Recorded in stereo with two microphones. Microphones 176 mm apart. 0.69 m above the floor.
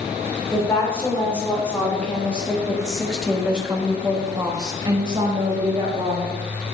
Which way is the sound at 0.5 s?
10° left (ahead or behind).